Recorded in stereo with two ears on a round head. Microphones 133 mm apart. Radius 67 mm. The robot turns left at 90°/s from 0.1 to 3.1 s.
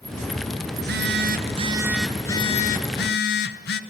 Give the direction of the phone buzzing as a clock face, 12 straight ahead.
2 o'clock.